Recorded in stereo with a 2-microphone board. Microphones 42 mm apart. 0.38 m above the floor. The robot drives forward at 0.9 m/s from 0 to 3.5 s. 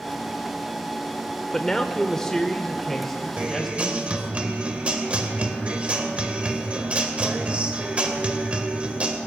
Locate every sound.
1.5 s a man speaking: 15° left (ahead or behind), 0.8 m; by 4.4 s 5° left (ahead or behind), 1.6 m
3.4 s a guitar: 30° right (ahead or behind), 1.6 m; by 9.2 s 35° right (ahead or behind), 1.6 m